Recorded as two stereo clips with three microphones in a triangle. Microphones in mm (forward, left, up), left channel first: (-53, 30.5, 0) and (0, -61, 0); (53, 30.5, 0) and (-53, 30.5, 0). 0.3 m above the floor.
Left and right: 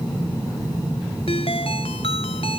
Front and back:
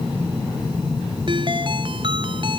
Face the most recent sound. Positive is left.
turn(degrees=140)